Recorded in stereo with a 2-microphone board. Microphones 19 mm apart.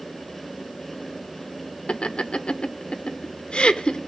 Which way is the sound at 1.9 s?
70° left (ahead or behind).